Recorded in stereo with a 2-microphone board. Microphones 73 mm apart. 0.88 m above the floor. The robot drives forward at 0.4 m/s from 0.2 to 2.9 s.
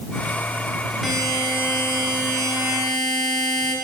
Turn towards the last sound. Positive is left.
turn(degrees=0)  # may be behind; listen again after turning